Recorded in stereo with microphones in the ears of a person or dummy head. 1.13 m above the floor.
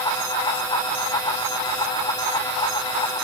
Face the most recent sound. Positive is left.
No sound to turn to.